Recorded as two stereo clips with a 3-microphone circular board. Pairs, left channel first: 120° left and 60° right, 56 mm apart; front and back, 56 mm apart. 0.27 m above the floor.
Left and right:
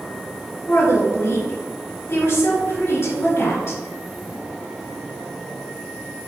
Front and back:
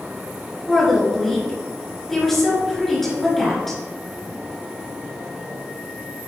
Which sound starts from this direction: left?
A woman speaking, at 0.7 s.